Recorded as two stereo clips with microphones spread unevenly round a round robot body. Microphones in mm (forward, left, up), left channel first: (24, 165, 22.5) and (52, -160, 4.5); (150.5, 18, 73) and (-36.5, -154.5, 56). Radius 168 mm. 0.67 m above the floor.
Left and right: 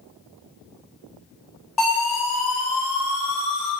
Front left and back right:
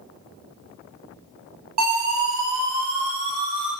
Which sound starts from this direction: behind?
A siren, at 1.8 s.